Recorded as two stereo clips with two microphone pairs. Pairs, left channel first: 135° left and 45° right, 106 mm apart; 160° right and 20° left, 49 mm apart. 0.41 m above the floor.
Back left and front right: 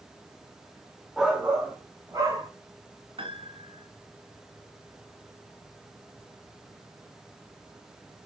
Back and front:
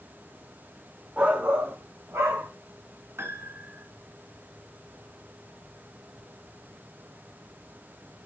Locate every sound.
1.2 s a shout: 40° left, 0.9 m; by 2.5 s 15° left, 2.5 m
3.2 s a piano: 10° right, 1.3 m